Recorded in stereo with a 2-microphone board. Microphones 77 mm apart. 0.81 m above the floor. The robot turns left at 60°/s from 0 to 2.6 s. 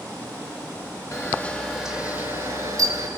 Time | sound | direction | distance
1.1 | a camera shutter | 40° left | 3.5 m